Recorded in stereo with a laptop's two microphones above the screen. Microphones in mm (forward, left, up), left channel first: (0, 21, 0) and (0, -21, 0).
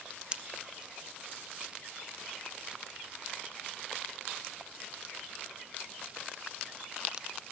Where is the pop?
20° right (ahead or behind), 0.9 m.